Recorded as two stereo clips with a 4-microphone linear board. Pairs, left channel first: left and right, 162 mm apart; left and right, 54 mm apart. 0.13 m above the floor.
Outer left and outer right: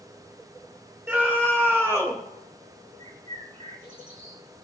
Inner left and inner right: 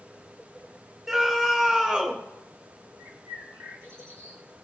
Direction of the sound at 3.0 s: 50° right (ahead or behind).